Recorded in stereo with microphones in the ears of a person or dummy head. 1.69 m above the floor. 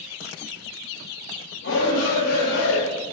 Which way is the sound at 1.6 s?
80° left.